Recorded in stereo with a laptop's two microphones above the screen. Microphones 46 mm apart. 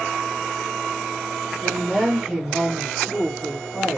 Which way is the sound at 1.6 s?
Centre (ahead or behind).